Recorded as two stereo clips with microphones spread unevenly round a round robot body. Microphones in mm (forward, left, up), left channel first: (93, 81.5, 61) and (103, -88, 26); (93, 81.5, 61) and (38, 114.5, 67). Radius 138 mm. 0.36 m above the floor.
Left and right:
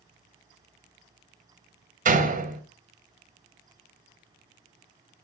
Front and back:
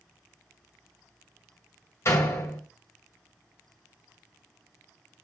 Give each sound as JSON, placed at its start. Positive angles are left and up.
{"t": 2.0, "sound": "a door slam", "azimuth_deg": -75, "distance_m": 1.5}